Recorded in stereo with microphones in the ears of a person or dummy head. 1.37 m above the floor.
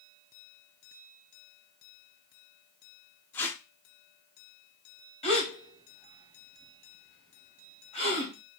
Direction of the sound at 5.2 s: 35° left (ahead or behind).